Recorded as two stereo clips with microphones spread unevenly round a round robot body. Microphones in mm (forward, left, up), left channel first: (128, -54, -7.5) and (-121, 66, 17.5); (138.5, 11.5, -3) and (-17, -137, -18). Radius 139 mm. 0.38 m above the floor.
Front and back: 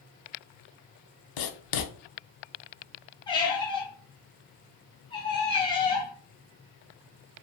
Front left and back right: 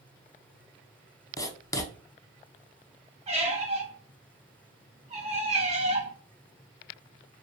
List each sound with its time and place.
1.4 s writing: 35° right, 0.6 m
3.3 s a squeak: 90° right, 0.9 m